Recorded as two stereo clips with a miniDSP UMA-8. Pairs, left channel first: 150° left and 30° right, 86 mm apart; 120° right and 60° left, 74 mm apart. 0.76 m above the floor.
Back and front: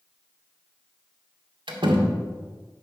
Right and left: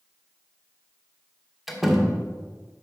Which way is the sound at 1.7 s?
25° right.